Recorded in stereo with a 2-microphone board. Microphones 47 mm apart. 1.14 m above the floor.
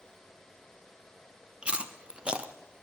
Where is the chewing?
20° right (ahead or behind), 0.6 m.